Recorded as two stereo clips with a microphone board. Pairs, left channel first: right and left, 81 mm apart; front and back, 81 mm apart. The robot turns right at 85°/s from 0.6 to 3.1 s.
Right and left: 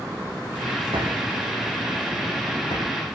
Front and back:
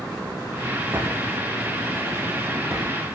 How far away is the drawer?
About 7 m.